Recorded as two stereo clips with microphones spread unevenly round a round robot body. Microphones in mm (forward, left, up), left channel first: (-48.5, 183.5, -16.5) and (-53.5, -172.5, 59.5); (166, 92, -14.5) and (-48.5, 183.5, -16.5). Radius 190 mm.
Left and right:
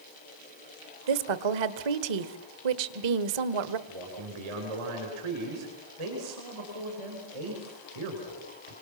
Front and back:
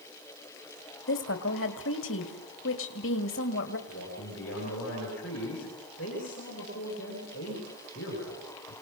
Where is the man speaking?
85° right, 9 m.